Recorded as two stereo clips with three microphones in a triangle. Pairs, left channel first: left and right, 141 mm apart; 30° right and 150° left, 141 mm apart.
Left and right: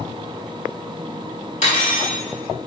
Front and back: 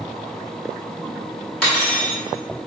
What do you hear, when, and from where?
1.6 s cutlery clinking: 55° left, 1.6 m